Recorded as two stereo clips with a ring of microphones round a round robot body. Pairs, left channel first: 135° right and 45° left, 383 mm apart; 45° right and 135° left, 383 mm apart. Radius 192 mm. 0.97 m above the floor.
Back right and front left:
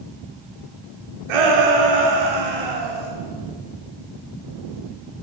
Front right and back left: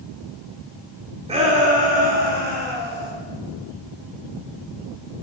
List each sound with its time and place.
1.3 s a shout: 60° left, 2.5 m; by 3.1 s 70° left, 3.5 m